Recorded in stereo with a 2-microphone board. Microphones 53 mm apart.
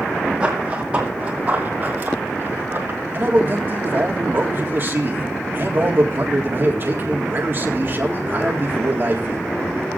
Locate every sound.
0.4 s running footsteps: 15° right (ahead or behind), 2.5 m; by 3.0 s 45° right (ahead or behind), 2 m
3.1 s a man speaking: 40° right (ahead or behind), 1.8 m